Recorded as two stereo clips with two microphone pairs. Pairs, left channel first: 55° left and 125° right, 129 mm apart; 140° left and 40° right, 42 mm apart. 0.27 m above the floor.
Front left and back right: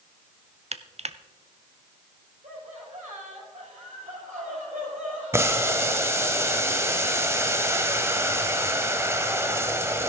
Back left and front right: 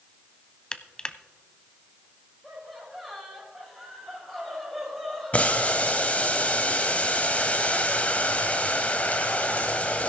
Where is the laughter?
135° right, 6 m.